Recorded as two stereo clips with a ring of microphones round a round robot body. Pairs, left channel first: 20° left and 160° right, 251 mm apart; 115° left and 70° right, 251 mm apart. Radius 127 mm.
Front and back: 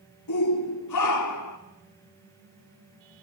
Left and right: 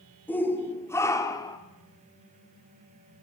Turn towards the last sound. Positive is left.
turn(degrees=35)